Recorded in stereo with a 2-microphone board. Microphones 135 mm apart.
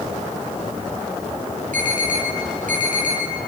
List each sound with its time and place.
1.7 s an alarm: 80° right, 9.5 m